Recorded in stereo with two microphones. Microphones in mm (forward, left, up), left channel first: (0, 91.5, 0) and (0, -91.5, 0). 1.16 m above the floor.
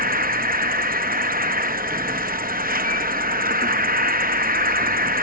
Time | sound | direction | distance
0.0 | an insect | 55° right (ahead or behind) | ?